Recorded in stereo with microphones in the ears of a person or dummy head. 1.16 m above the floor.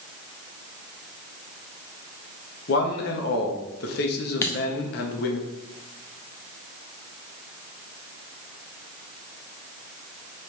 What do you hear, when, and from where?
2.7 s a man speaking: 50° left (ahead or behind), 0.9 m
4.4 s a dropped coin: 20° left (ahead or behind), 0.6 m